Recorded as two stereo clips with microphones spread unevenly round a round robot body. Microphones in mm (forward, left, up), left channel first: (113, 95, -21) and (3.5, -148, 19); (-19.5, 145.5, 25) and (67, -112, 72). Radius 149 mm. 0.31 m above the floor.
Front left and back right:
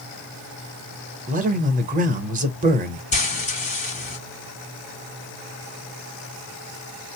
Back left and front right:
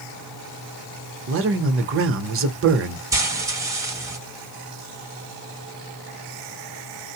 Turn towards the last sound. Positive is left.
turn(degrees=15)